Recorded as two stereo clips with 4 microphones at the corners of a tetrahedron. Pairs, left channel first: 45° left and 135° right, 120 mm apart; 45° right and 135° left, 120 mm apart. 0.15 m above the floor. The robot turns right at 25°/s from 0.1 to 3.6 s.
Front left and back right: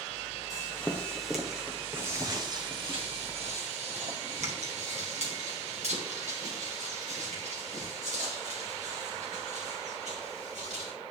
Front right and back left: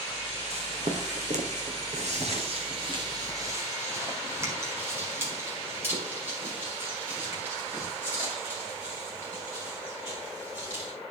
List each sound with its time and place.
0.5 s footsteps: 110° left, 1.6 m; by 10.9 s 150° right, 7 m